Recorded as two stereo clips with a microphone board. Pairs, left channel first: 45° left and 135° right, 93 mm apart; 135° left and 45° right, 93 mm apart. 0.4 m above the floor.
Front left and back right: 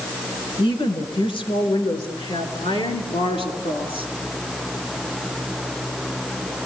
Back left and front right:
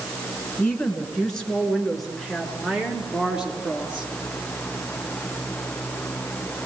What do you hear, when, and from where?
0.6 s a woman speaking: 60° left, 4 m; by 4.1 s 35° left, 5.5 m